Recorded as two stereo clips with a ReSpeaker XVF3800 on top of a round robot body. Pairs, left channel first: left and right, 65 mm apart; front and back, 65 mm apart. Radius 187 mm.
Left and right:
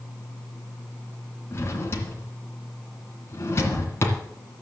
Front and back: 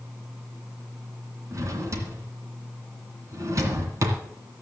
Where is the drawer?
140° left, 2 m.